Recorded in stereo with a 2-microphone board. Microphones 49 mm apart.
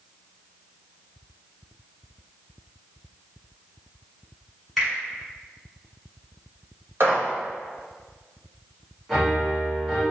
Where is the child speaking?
No child speaking in this recording.